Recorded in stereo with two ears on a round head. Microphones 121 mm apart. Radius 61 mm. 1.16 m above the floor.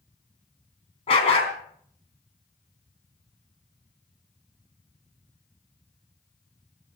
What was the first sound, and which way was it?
A dog barking, 45° left (ahead or behind).